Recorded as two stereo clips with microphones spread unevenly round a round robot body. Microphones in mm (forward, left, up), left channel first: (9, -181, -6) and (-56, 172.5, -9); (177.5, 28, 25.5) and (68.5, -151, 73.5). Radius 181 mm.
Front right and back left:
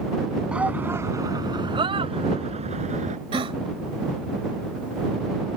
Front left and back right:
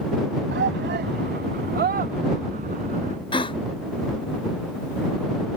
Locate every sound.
0.5 s a shout: 170° right; by 3.2 s 170° left
3.3 s a gasp: 35° left